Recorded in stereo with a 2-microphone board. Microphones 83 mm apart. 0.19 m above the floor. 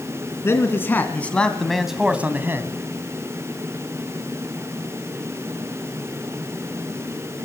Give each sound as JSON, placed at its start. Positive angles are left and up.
{"t": 0.4, "sound": "a man speaking", "side_deg": 30, "distance_m": 2.5}